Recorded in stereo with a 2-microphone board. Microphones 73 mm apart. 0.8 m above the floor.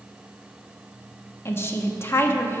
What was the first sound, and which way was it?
A woman speaking, 35° left (ahead or behind).